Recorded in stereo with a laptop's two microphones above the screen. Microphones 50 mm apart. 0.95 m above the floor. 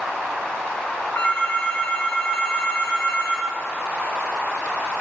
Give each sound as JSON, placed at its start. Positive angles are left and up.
{"t": 1.1, "sound": "a phone ringing", "side_deg": 40, "distance_m": 6.0}